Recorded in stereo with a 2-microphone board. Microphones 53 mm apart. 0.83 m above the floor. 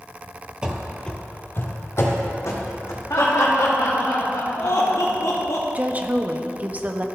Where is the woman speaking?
30° right (ahead or behind), 0.6 m.